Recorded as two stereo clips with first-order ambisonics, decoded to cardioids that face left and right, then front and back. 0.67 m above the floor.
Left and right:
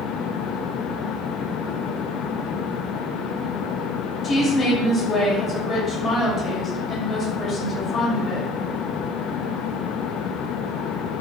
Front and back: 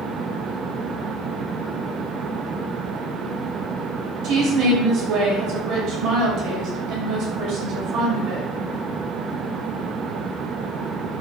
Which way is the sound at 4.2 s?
150° left.